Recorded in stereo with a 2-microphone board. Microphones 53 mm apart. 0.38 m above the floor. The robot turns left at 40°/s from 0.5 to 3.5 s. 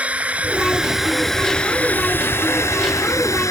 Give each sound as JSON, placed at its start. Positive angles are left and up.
{"t": 0.0, "sound": "a drone", "azimuth_deg": -155}